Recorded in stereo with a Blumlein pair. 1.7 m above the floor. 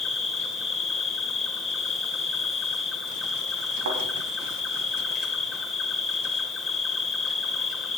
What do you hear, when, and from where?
0.0 s an insect: 15° left, 3 m
3.9 s a thud: 60° right, 5 m